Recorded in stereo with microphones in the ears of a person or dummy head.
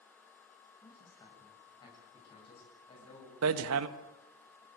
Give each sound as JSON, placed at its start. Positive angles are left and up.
{"t": 0.8, "sound": "a man speaking", "side_deg": 25, "distance_m": 8.5}
{"t": 3.4, "sound": "hammering", "side_deg": -90, "distance_m": 1.2}